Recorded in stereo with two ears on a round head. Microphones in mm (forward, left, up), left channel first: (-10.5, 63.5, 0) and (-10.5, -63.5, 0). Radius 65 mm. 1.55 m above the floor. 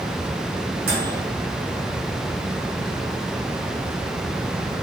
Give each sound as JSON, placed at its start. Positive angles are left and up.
{"t": 0.9, "sound": "a microwave", "side_deg": -75, "distance_m": 2.5}